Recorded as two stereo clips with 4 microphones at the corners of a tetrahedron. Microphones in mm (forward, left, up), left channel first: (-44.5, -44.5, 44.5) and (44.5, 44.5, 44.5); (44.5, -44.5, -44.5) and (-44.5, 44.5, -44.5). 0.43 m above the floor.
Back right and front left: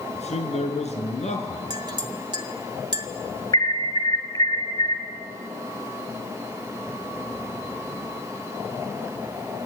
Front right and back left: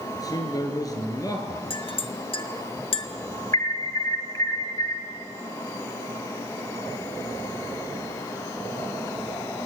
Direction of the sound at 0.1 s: 105° right.